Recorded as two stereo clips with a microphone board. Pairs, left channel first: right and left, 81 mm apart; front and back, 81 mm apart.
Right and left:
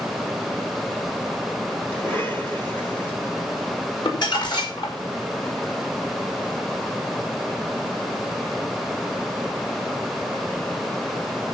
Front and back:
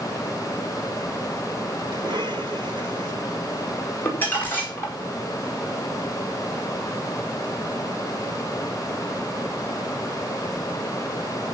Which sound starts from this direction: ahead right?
Crumpling, at 4.0 s.